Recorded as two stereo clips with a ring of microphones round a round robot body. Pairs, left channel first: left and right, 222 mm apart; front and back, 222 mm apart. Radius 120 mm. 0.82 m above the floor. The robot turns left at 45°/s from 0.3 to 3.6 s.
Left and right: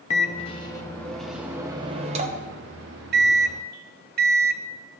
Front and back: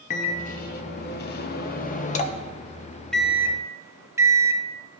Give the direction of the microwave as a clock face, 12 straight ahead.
11 o'clock.